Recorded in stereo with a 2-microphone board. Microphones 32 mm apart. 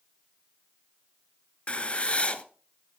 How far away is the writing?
About 1.1 m.